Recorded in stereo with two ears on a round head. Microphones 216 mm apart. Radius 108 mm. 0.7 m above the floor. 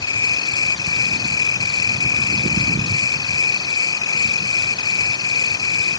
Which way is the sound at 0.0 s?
15° left (ahead or behind).